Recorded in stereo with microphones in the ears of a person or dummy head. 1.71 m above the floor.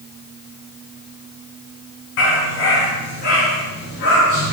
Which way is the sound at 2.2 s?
70° left (ahead or behind).